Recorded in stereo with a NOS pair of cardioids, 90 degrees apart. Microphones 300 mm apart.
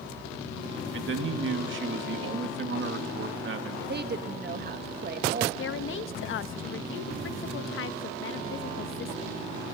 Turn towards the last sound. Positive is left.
turn(degrees=45)